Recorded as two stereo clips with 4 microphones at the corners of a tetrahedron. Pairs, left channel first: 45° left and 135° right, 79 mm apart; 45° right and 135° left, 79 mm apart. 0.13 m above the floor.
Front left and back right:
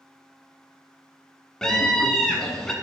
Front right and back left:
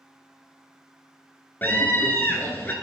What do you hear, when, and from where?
1.6 s a scream: 30° right, 1.3 m